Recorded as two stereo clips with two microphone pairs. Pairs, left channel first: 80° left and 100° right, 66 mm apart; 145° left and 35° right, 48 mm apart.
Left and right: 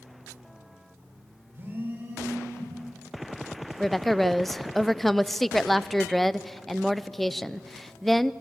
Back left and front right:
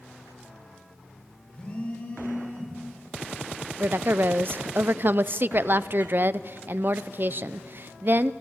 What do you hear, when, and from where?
1.5 s a phone buzzing: 155° right, 5.5 m
3.8 s a woman speaking: 5° right, 0.5 m